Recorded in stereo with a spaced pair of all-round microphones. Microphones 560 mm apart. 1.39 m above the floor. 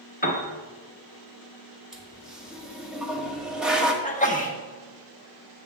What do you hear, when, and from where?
0.2 s a piano: 15° left (ahead or behind), 1.0 m
1.9 s a toilet flushing: centre (ahead or behind), 0.9 m
4.0 s a sneeze: 15° left (ahead or behind), 1.1 m